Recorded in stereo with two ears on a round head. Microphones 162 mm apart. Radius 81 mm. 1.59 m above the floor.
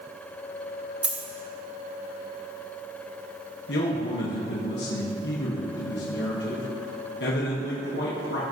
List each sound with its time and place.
1.0 s a dropped coin: 10° right (ahead or behind), 1.7 m
3.7 s a man speaking: 70° left (ahead or behind), 1.5 m